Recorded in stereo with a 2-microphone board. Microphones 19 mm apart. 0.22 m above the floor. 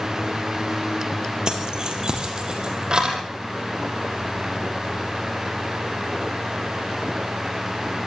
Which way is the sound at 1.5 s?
35° right (ahead or behind).